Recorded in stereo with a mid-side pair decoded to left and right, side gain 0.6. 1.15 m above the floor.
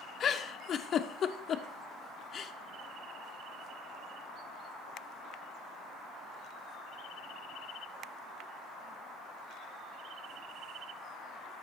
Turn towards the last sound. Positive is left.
turn(degrees=40)